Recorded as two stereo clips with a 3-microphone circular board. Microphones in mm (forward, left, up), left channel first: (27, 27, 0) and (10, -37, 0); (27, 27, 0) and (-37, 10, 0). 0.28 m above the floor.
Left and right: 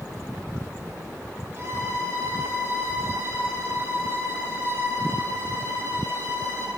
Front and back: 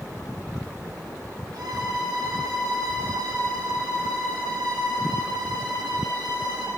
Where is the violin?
155° right, 3.5 m.